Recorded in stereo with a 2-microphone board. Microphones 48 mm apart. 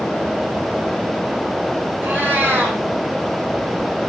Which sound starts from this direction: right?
A cat meowing, at 2.0 s.